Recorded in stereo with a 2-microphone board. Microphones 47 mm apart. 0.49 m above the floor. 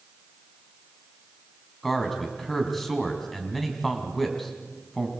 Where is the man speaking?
5° left (ahead or behind), 3.5 m.